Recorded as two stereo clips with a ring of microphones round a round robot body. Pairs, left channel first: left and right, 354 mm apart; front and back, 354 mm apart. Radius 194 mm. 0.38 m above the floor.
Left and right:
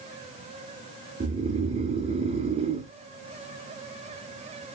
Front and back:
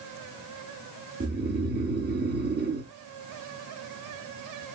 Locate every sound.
1.2 s snoring: 150° right, 1.2 m